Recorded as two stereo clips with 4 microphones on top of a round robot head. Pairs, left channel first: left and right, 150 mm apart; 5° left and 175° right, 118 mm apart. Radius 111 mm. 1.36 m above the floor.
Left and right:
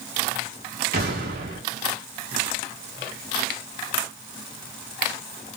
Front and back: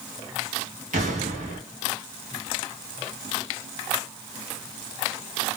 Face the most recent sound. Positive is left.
turn(degrees=-130)